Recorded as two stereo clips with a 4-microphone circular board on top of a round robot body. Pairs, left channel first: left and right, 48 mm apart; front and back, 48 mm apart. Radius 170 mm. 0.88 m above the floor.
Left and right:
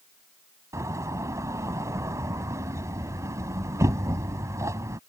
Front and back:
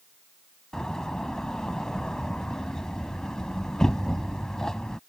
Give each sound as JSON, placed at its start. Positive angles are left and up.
{"t": 0.7, "sound": "a door slam", "azimuth_deg": -80}